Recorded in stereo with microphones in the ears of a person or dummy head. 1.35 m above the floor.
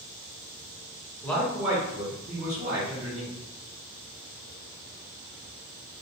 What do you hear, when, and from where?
1.2 s a man speaking: 10° left (ahead or behind), 0.7 m; by 3.3 s 65° right (ahead or behind), 1.3 m